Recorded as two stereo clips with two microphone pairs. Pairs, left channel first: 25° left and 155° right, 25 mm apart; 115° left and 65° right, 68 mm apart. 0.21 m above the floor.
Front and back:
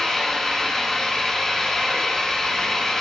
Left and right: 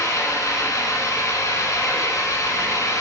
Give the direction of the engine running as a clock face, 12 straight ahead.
9 o'clock.